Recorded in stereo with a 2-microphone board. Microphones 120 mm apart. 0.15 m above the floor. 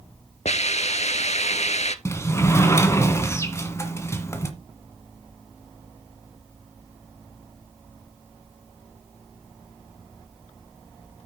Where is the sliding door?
25° left (ahead or behind), 1.5 m.